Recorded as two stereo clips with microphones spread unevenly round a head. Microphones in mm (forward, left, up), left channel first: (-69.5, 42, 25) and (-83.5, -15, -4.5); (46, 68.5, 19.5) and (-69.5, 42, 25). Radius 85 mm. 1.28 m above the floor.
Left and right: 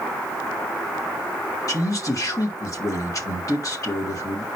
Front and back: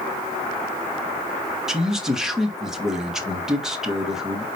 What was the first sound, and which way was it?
A man speaking, 105° left.